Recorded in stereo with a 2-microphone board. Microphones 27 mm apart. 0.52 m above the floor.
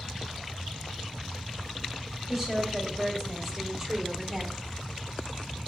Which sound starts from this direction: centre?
A woman speaking, at 2.3 s.